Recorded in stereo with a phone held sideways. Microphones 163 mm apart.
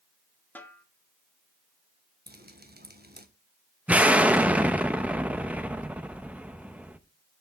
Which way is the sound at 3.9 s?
10° right (ahead or behind).